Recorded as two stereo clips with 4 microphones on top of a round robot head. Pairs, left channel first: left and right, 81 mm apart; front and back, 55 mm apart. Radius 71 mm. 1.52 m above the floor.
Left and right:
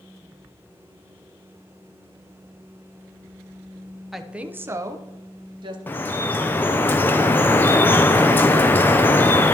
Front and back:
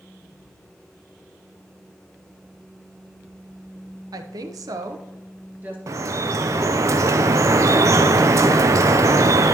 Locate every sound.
4.1 s a woman speaking: 175° right, 0.8 m; by 5.8 s 110° right, 1.2 m
5.9 s dripping: 155° left, 0.5 m